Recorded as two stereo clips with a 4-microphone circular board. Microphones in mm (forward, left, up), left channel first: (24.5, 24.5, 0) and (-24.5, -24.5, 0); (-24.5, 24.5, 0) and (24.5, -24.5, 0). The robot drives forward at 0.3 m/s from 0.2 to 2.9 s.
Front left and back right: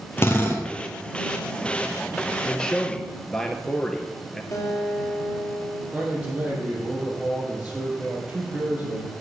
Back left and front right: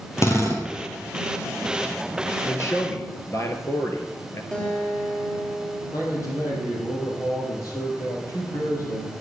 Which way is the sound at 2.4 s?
120° left.